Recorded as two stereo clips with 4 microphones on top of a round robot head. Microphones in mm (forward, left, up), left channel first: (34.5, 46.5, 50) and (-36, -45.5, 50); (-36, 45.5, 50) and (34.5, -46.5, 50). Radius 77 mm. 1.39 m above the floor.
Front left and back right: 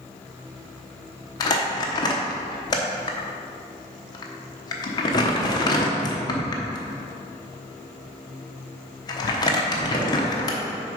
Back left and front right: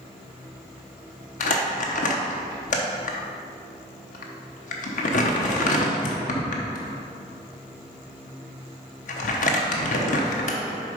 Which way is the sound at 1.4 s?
110° left.